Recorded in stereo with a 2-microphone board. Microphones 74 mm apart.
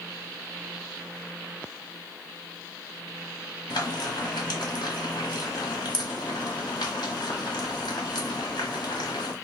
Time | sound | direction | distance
3.7 | frying | 80° left | 1.3 m